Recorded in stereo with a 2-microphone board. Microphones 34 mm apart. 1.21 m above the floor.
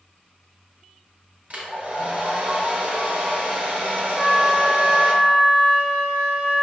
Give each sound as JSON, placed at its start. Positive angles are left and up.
{"t": 1.5, "sound": "a hair dryer", "side_deg": -45, "distance_m": 0.8}
{"t": 4.1, "sound": "a flute", "side_deg": 0, "distance_m": 1.3}